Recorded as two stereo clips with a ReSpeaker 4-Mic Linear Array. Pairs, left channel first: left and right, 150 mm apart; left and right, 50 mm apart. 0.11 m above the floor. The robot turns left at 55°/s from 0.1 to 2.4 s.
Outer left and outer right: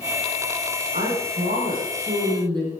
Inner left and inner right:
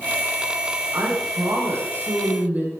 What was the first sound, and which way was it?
A woman speaking, 65° right.